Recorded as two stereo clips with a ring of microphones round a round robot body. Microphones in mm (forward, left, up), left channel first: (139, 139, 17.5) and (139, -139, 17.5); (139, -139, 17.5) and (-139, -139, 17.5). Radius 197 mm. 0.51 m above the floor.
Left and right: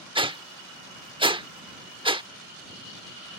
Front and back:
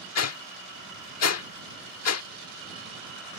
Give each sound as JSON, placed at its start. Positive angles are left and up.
{"t": 0.1, "sound": "a whoosh", "azimuth_deg": -20}